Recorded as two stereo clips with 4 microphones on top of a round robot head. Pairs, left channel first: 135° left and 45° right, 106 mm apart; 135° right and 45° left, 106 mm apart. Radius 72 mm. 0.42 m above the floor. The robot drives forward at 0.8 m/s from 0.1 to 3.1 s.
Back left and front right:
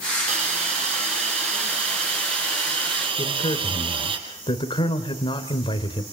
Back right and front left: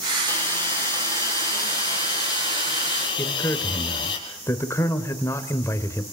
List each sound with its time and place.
0.3 s a hiss: 65° right, 6.5 m; by 4.2 s 85° right, 6 m
3.2 s a man speaking: 165° left, 2 m